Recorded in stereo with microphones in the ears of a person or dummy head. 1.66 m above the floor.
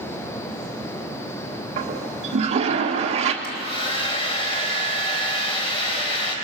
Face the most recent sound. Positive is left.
turn(degrees=35)  # may be behind; listen again after turning